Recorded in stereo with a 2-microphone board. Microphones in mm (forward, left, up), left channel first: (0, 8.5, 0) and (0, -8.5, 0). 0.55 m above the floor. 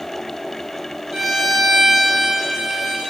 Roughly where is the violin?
Right.